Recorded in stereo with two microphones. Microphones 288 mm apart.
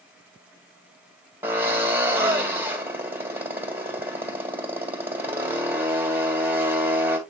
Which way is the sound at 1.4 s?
5° right (ahead or behind).